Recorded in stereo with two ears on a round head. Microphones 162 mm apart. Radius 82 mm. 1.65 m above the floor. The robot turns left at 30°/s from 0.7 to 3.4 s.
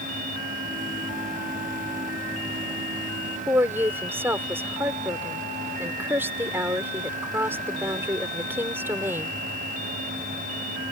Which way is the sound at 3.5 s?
10° right (ahead or behind).